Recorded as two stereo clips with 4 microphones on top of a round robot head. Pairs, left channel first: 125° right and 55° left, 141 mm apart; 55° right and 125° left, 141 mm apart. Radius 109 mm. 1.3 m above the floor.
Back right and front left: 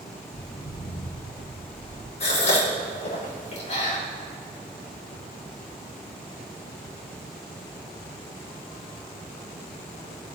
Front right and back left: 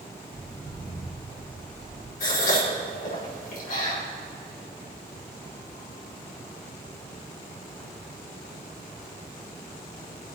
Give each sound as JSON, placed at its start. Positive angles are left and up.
{"t": 0.3, "sound": "footsteps", "azimuth_deg": -150, "distance_m": 2.5}
{"t": 2.2, "sound": "a gasp", "azimuth_deg": -80, "distance_m": 4.5}